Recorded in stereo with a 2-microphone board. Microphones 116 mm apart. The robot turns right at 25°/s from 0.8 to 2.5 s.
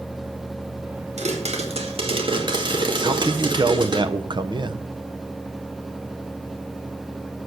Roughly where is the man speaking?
Right.